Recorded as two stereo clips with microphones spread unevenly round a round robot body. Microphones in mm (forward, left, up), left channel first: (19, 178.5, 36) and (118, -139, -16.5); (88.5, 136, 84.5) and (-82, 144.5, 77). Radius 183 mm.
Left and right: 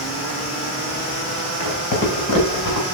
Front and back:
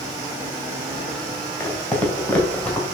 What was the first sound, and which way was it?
Footsteps, 75° left.